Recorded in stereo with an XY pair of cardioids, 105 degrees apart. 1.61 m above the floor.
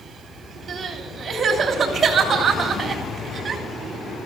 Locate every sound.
0.7 s crying: 40° right, 3 m